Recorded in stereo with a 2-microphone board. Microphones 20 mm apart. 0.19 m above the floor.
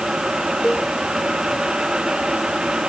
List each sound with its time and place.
0.6 s a cowbell: 45° left (ahead or behind)